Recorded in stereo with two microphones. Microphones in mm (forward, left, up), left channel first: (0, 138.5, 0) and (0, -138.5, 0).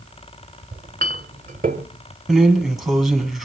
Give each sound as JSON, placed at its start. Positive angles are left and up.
{"t": 0.7, "sound": "a clink", "side_deg": -30, "distance_m": 1.1}
{"t": 2.3, "sound": "a drawer", "side_deg": 0, "distance_m": 1.9}